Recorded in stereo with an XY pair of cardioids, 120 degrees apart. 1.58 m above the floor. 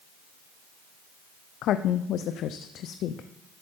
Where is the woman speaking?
65° left, 0.5 m.